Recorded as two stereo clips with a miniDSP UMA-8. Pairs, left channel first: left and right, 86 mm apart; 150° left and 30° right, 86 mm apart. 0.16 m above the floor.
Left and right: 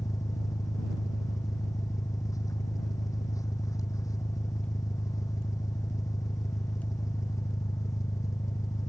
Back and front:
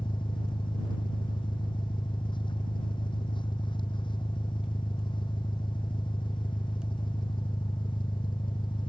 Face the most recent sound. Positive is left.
turn(degrees=135)